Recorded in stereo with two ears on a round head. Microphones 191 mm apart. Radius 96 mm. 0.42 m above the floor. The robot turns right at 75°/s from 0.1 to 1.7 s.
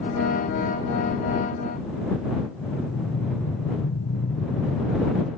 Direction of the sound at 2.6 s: 80° left.